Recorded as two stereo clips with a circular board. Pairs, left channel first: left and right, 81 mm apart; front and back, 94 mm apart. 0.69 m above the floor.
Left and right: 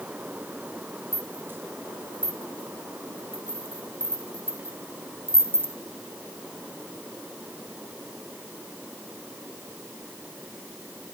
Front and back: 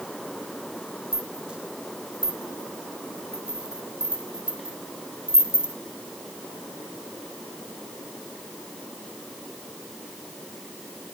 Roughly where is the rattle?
Behind right.